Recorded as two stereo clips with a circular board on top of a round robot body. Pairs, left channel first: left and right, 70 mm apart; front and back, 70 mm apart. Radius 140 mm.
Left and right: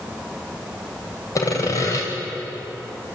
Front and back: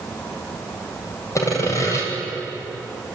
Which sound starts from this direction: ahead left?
Sawing, at 1.4 s.